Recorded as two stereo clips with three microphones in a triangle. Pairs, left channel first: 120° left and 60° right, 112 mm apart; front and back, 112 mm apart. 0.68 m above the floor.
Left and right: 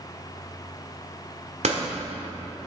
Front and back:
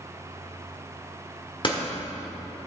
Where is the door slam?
45° right, 1.3 m.